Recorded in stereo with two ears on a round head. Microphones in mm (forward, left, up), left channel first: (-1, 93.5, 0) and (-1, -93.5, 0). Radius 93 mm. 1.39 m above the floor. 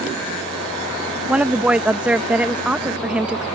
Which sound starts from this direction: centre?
A woman speaking, at 1.3 s.